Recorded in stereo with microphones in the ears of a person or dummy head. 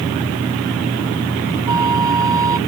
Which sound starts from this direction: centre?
A flute, at 1.7 s.